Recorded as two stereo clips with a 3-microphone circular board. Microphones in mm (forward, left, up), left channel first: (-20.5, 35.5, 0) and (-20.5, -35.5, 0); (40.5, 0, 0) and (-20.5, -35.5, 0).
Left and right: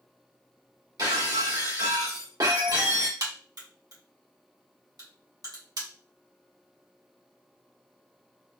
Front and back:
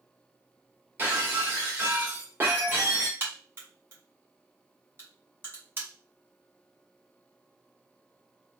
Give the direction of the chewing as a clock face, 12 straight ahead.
I don't hear chewing.